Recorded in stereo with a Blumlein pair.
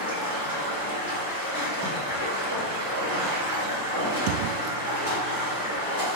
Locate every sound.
0.0 s running water: 60° right, 1.8 m